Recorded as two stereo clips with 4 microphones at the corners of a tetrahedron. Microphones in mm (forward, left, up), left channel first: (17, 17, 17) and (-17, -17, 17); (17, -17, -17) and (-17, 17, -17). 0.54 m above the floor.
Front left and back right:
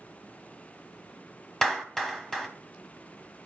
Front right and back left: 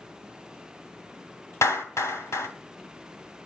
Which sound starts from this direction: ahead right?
A clap, at 1.6 s.